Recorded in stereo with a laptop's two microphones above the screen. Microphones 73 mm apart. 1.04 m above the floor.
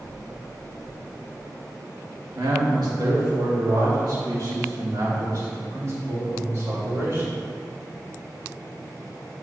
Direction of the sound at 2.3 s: 70° right (ahead or behind).